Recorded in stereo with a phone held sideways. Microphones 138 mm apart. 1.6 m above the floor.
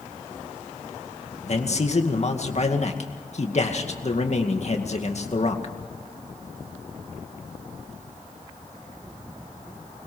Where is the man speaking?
50° left (ahead or behind), 2 m.